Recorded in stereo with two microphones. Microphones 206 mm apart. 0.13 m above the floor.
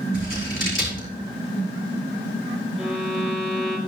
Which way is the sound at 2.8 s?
5° left (ahead or behind).